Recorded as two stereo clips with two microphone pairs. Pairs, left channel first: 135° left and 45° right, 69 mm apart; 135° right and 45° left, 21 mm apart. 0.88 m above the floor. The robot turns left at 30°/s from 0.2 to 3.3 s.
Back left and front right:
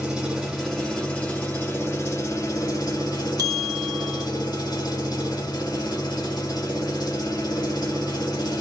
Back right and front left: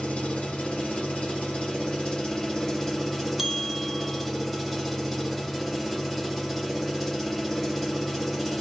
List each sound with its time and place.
0.0 s an engine running: 130° right, 3.5 m; by 8.6 s 140° left, 3.5 m
3.4 s a bell: 35° right, 1.3 m